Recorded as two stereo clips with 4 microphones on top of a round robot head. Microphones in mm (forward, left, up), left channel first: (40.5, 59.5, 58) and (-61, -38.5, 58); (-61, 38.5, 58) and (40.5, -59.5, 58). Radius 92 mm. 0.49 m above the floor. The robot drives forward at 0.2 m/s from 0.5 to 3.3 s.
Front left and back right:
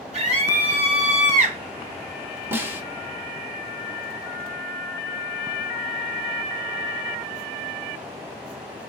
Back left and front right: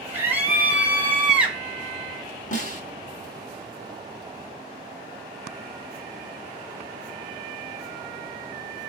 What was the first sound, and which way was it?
A scream, 120° right.